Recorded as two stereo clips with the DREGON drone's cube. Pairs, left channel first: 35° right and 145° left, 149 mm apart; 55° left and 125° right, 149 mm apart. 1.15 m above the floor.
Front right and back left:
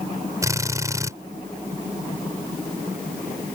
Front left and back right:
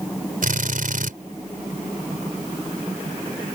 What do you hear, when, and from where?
0.4 s a drill: 145° right